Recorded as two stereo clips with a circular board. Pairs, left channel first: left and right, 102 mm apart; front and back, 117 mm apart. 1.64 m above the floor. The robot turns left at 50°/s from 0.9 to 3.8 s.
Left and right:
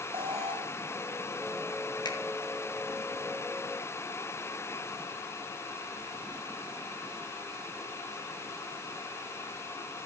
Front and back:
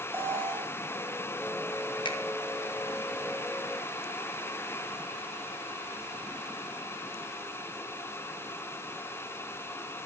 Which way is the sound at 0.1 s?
115° right.